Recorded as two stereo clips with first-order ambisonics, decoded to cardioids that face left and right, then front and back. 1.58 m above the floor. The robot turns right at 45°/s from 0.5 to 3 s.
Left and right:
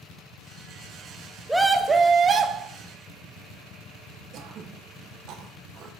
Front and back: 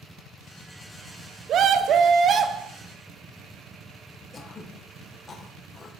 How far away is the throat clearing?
About 0.7 m.